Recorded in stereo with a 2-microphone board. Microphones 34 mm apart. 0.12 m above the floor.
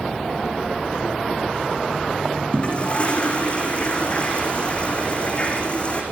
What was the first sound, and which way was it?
A toilet flushing, 35° left (ahead or behind).